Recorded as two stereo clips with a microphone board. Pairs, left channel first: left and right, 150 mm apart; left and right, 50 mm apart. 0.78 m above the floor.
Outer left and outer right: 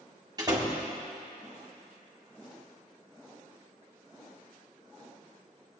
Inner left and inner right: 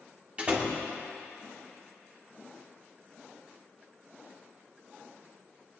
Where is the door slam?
25° right (ahead or behind), 1.7 m.